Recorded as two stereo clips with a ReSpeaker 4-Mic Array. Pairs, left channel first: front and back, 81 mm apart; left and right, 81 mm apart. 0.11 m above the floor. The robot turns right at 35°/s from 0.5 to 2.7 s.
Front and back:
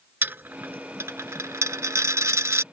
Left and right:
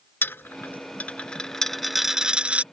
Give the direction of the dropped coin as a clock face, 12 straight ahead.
8 o'clock.